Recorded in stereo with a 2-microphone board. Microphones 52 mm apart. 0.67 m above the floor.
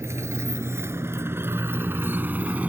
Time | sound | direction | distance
0.0 | a motorcycle | 65° right (ahead or behind) | ?